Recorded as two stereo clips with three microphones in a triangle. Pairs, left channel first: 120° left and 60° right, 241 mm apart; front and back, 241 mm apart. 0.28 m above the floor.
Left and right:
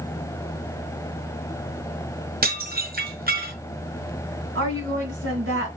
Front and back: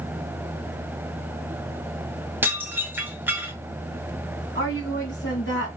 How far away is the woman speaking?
About 2.5 m.